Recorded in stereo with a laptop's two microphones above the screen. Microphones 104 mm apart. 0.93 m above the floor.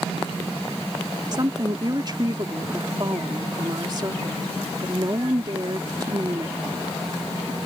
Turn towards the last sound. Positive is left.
turn(degrees=-40)  # may be behind; listen again after turning